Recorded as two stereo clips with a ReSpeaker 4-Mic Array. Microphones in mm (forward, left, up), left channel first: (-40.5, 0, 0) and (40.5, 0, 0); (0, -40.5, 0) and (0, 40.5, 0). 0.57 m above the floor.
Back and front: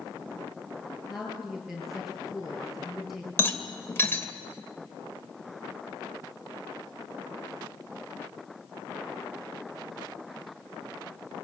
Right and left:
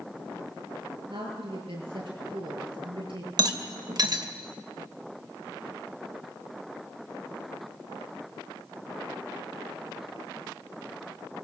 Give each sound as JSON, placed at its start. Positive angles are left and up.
{"t": 1.1, "sound": "a woman speaking", "azimuth_deg": 90, "distance_m": 8.5}
{"t": 3.4, "sound": "a rattle", "azimuth_deg": 120, "distance_m": 2.5}